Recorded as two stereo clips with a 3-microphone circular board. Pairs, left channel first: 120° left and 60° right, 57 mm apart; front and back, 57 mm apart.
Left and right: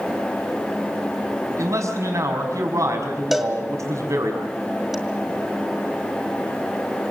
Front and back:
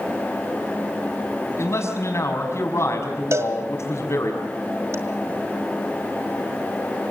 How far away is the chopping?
No chopping in this recording.